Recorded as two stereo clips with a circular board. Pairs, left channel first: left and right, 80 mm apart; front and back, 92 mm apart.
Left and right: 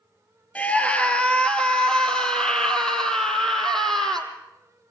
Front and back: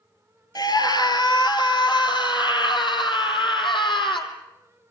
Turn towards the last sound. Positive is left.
turn(degrees=5)